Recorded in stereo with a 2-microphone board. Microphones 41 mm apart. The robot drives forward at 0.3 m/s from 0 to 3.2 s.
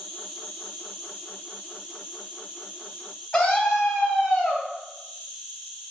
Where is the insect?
Centre (ahead or behind), 3.5 m.